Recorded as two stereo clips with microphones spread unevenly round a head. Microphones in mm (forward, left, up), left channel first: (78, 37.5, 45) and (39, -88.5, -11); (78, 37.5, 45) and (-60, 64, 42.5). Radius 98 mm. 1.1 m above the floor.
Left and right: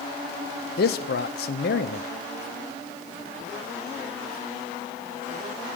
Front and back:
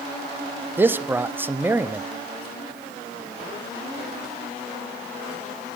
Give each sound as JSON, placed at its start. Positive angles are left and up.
{"t": 0.8, "sound": "a man speaking", "azimuth_deg": 95, "distance_m": 0.5}